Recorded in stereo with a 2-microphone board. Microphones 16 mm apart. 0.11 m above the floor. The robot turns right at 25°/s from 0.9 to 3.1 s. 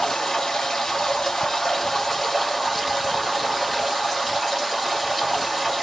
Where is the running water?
120° left, 1.3 m; by 5.8 s 175° left, 1.3 m.